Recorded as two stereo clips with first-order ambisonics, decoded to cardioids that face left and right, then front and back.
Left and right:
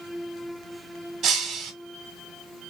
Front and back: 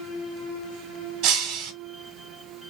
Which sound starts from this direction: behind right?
Breaking glass, at 1.2 s.